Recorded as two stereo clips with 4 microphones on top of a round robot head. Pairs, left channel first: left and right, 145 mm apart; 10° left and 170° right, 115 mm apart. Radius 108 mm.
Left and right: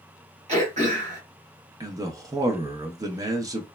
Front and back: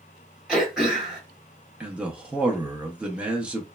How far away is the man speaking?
About 0.6 m.